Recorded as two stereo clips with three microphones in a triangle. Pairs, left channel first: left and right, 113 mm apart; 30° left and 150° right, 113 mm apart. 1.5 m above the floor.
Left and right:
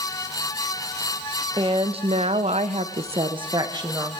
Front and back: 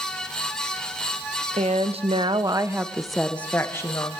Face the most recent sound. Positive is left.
turn(degrees=-30)